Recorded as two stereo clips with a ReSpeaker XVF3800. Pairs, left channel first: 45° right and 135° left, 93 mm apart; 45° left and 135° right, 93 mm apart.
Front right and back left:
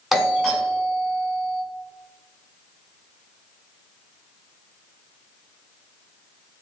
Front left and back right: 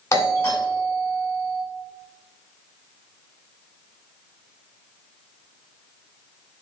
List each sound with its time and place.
0.1 s a doorbell: 45° left, 1.4 m